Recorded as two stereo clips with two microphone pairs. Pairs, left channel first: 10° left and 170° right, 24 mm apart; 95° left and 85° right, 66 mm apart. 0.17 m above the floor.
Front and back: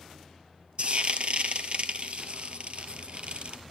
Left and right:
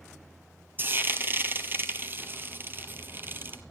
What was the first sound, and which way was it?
Frying, 140° right.